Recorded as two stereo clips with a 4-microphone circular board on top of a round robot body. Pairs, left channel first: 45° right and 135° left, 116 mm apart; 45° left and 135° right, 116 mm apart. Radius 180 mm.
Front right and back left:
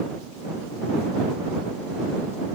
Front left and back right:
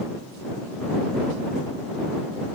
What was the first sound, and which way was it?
Only background noise.